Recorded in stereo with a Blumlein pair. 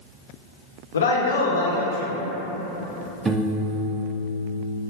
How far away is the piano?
About 0.6 m.